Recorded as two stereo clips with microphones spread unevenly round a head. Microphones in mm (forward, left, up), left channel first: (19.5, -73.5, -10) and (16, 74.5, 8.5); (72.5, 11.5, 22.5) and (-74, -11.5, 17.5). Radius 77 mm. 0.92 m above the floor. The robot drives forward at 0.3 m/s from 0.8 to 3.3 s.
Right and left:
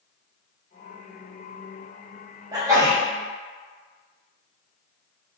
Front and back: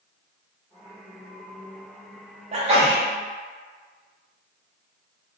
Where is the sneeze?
160° left, 0.8 m; by 3.0 s 165° left, 0.9 m.